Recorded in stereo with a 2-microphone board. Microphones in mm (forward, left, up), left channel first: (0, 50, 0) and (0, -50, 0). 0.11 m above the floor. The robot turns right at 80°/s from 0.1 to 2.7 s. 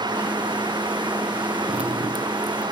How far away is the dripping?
About 1.2 m.